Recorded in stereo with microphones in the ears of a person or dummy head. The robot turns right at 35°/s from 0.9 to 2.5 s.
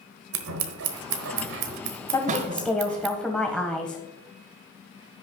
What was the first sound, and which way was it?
Scissors, 85° right.